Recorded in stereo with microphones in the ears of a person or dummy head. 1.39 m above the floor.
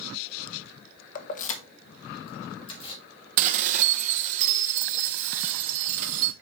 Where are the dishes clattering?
40° right (ahead or behind), 0.8 m.